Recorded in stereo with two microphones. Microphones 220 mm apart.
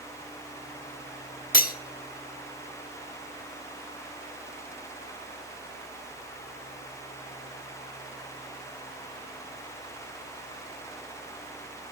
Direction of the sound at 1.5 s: 40° left (ahead or behind).